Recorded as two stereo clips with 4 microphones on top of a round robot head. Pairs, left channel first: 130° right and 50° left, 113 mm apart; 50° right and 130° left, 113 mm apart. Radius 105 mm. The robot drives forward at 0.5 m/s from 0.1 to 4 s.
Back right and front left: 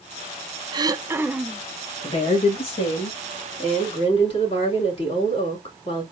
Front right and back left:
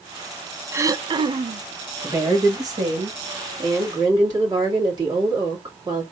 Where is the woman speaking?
165° right, 1.5 m; by 6.0 s 170° right, 2.5 m.